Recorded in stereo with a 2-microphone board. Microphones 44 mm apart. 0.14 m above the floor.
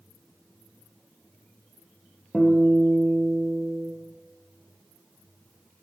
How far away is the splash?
I don't hear a splash.